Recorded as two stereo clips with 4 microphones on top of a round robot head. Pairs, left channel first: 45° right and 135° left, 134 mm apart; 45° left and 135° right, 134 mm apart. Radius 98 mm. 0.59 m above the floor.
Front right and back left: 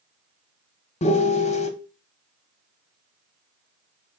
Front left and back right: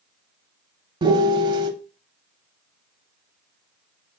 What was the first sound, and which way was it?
A piano, 80° right.